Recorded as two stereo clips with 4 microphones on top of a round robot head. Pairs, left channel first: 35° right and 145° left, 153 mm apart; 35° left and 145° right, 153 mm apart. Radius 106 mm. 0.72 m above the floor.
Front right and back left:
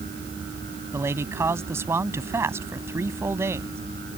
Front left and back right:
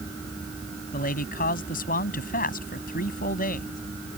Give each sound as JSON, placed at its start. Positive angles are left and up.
{"t": 0.9, "sound": "a man speaking", "azimuth_deg": 70}